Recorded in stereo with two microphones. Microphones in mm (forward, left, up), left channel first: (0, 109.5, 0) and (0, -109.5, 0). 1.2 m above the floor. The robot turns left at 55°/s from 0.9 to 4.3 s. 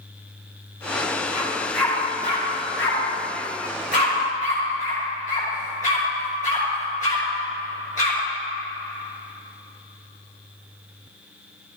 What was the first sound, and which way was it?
A dog barking, 20° right (ahead or behind).